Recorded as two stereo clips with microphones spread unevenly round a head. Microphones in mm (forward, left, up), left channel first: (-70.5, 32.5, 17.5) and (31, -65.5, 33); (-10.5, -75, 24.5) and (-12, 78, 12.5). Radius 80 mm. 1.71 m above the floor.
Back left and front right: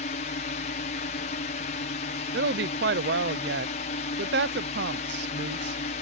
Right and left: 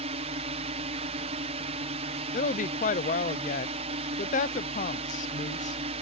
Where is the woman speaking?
45° right.